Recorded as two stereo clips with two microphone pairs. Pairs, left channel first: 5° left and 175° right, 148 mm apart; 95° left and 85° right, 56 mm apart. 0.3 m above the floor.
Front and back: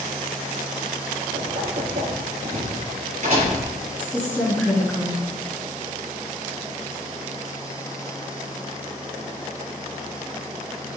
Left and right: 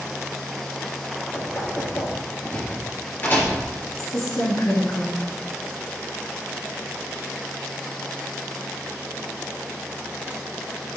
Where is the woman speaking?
85° left, 3 m.